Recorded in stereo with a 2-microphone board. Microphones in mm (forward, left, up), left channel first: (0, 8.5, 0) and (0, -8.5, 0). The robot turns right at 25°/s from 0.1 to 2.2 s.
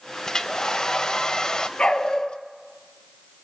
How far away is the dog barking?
About 2 m.